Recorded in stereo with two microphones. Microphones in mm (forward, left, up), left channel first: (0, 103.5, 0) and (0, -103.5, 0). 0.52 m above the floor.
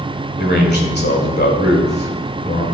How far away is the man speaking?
About 2 m.